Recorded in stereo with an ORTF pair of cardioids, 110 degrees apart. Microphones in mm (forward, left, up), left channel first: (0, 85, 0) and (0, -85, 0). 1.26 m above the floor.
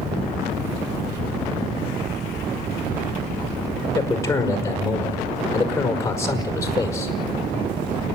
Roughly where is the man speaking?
Ahead.